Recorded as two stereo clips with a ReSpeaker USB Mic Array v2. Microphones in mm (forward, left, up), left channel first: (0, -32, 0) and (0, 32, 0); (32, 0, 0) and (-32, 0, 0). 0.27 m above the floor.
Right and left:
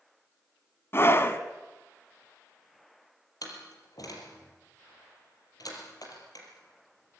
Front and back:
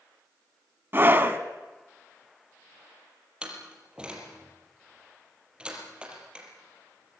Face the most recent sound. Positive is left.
turn(degrees=-105)